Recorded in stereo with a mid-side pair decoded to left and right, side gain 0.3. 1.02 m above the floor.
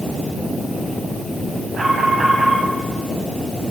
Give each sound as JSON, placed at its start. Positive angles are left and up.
{"t": 1.7, "sound": "an alarm", "azimuth_deg": -50, "distance_m": 8.5}